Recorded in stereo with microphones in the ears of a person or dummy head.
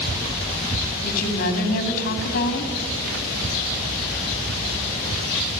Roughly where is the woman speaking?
Left.